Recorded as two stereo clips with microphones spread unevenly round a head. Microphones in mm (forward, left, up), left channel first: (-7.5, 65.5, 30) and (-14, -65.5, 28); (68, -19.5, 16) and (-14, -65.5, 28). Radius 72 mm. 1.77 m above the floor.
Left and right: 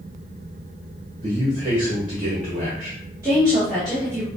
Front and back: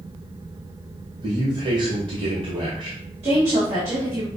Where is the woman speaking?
155° right, 2.5 m.